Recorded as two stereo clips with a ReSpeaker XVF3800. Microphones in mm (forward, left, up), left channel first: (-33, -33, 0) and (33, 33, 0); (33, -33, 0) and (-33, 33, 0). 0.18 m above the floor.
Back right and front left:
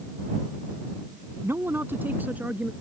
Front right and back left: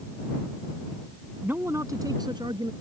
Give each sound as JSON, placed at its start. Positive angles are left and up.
{"t": 1.4, "sound": "a man speaking", "azimuth_deg": 80}